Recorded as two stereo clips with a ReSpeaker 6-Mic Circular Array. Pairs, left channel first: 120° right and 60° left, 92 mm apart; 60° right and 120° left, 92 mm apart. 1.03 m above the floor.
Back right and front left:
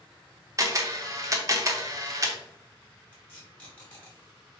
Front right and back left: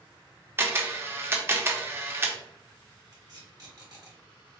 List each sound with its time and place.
0.6 s a camera shutter: 75° left, 0.7 m
3.1 s tape being pulled: 170° left, 1.9 m